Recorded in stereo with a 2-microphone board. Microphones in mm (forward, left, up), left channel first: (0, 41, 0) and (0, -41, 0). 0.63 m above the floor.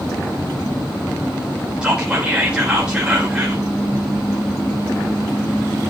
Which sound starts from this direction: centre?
Whispering, at 1.8 s.